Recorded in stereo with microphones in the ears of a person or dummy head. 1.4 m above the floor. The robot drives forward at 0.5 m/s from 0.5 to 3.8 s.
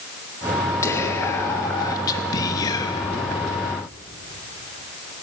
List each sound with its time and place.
0.8 s whispering: 20° left (ahead or behind), 3.5 m; by 3.4 s 30° left (ahead or behind), 2 m